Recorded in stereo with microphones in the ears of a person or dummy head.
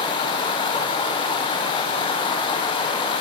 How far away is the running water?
About 0.9 m.